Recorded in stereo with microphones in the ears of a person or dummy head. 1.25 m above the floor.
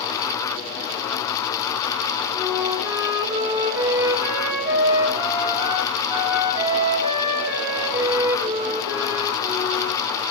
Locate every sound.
2.3 s a flute: 20° right (ahead or behind), 2.5 m